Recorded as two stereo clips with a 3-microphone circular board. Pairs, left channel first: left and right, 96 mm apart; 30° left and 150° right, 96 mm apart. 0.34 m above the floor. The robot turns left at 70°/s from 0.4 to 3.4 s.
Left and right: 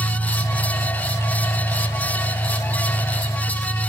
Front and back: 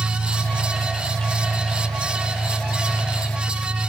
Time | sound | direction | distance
0.0 | an engine running | 115° right | 10 m